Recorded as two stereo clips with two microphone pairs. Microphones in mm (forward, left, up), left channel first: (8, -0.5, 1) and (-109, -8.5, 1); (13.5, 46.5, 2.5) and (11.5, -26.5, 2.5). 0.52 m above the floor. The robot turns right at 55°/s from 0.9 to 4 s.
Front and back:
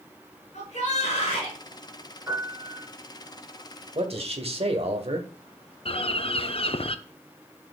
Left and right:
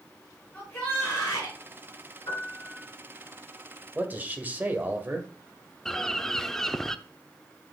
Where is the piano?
115° left, 5 m; by 2.9 s 150° left, 5 m.